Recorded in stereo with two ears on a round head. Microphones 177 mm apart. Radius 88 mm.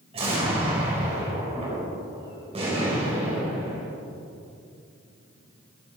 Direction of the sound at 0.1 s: 30° right (ahead or behind).